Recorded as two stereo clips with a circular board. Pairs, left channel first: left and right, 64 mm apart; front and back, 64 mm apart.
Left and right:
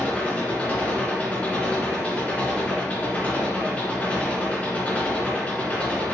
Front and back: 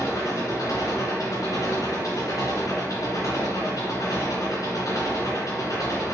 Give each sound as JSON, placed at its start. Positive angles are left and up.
{"t": 0.0, "sound": "an engine running", "azimuth_deg": 25, "distance_m": 2.5}